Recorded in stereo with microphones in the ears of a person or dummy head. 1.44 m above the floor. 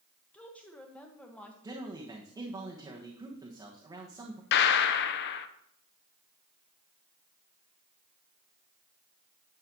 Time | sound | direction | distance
0.3 | a woman speaking | 5° left (ahead or behind) | 1.3 m
1.6 | a man speaking | 25° right (ahead or behind) | 1.3 m
4.5 | a gunshot | 60° left (ahead or behind) | 0.7 m